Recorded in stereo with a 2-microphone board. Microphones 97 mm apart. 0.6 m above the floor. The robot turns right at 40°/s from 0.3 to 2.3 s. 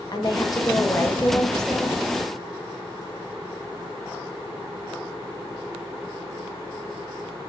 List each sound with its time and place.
0.1 s a woman speaking: 120° left, 1.1 m; by 2.0 s 170° right, 1.1 m